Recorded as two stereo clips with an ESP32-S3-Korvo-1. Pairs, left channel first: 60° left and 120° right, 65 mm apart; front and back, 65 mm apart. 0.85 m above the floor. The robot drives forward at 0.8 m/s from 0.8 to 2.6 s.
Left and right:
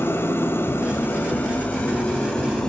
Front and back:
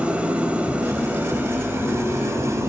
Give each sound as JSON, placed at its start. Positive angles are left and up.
{"t": 0.0, "sound": "an engine running", "azimuth_deg": 110, "distance_m": 2.5}